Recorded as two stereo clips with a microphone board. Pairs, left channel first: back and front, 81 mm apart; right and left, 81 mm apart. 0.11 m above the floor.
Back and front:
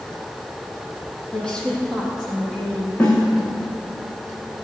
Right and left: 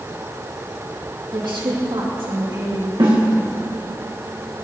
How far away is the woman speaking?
About 5 m.